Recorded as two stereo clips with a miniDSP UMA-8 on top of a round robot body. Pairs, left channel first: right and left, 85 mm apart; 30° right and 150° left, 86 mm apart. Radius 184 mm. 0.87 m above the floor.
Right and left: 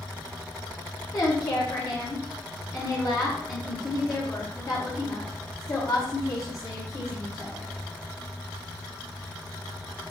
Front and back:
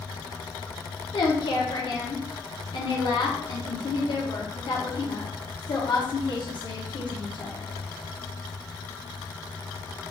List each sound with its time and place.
1.1 s a woman speaking: 40° right, 1.0 m